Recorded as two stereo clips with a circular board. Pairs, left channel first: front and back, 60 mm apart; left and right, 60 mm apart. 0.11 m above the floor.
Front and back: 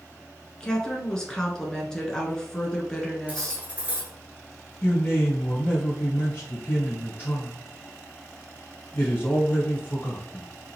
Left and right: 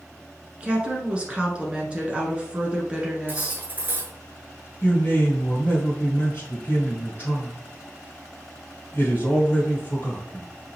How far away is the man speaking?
About 1.6 m.